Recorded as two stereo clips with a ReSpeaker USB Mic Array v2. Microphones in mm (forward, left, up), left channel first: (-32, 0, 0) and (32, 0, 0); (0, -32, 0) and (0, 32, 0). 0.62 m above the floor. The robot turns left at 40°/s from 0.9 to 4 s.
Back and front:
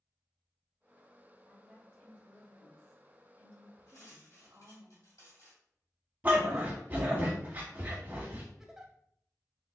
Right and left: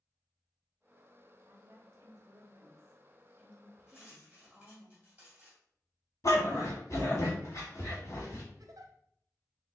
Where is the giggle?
85° left, 0.6 m.